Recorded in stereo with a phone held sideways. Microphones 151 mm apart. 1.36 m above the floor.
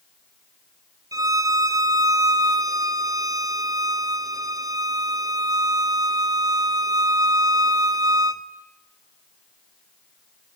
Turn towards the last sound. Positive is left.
turn(degrees=-25)  # may be behind; listen again after turning